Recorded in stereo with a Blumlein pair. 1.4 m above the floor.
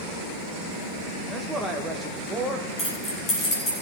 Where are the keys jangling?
20° left, 7.5 m.